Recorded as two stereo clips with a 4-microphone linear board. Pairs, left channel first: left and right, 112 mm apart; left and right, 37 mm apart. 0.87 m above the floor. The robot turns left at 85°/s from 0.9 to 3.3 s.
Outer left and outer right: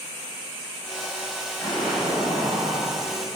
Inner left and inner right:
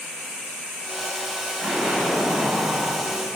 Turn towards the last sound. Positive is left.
turn(degrees=-115)